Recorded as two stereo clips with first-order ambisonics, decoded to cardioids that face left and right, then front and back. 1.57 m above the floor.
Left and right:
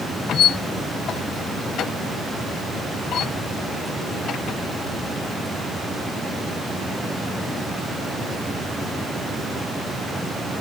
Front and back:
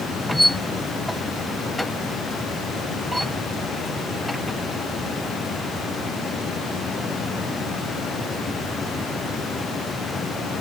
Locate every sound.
0.3 s a squeak: 90° left